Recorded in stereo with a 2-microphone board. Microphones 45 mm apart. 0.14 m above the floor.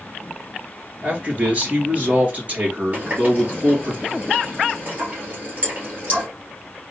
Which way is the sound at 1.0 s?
35° right (ahead or behind).